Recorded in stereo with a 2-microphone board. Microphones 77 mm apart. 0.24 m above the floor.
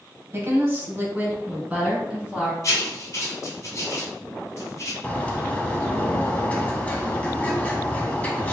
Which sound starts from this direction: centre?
A bird, at 5.0 s.